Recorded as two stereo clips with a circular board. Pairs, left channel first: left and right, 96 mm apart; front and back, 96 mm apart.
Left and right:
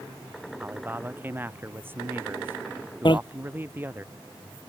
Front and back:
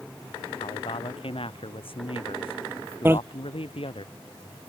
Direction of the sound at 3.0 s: 115° left.